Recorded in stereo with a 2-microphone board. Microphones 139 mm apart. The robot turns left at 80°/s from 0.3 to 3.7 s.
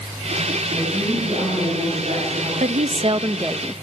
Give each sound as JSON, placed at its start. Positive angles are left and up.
{"t": 0.7, "sound": "a woman speaking", "azimuth_deg": -5, "distance_m": 6.5}
{"t": 2.6, "sound": "a woman speaking", "azimuth_deg": -85, "distance_m": 0.6}